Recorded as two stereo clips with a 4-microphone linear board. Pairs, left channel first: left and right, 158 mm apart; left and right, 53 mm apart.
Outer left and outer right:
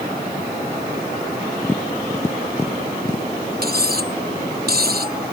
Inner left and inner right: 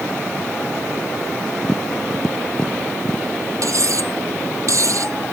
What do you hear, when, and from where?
1.6 s tapping: 15° left (ahead or behind)
3.6 s cutlery clinking: 70° right (ahead or behind)